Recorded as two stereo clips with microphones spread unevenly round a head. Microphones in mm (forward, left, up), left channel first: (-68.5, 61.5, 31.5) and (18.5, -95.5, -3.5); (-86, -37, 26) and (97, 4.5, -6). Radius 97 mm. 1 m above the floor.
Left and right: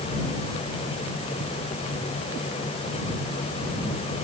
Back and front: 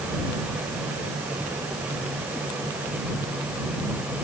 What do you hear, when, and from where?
Only background noise.